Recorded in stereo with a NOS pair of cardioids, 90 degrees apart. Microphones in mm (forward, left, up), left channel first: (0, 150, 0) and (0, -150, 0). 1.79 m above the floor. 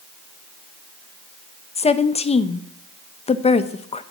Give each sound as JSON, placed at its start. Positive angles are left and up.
{"t": 1.8, "sound": "a woman speaking", "azimuth_deg": 20, "distance_m": 0.6}